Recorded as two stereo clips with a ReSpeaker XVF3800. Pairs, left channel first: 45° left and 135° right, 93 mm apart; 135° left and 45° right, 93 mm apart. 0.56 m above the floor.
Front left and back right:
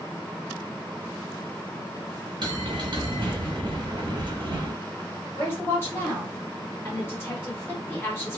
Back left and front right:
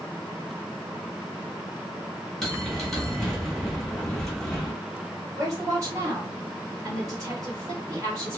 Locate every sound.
2.4 s a bell: 140° right, 0.8 m
5.3 s a woman speaking: 10° right, 1.5 m